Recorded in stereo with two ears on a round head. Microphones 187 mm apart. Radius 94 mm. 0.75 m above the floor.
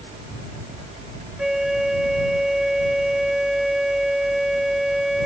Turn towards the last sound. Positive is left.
turn(degrees=0)  # may be behind; listen again after turning